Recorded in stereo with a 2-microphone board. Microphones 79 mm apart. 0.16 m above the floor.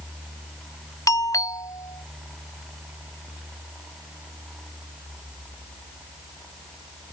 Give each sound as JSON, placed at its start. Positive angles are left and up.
{"t": 1.1, "sound": "a doorbell", "side_deg": 45}